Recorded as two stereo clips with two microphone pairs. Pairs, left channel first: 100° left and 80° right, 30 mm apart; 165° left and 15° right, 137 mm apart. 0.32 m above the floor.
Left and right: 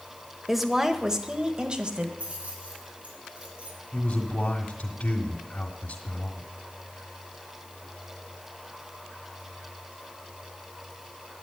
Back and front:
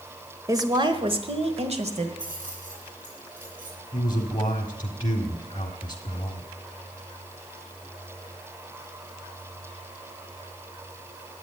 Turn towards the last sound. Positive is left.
turn(degrees=110)